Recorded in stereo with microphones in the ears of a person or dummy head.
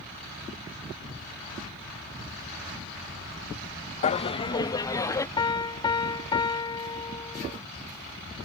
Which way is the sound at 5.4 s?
20° left (ahead or behind).